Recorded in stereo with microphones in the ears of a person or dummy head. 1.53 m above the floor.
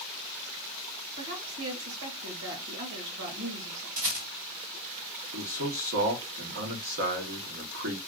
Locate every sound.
1.1 s a woman speaking: 65° right (ahead or behind), 2.5 m
4.0 s a rattle: 65° right (ahead or behind), 3 m
5.3 s a man speaking: 60° right (ahead or behind), 0.9 m